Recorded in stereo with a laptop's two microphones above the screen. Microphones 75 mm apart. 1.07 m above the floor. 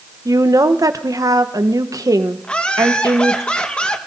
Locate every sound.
0.2 s a woman speaking: 55° right (ahead or behind), 0.8 m
2.4 s laughter: 15° left (ahead or behind), 1.2 m